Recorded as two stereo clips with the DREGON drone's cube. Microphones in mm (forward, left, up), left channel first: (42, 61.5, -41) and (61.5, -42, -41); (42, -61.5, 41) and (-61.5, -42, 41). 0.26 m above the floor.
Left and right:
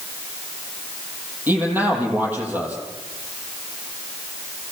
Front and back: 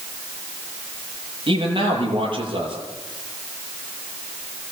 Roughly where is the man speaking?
Behind right.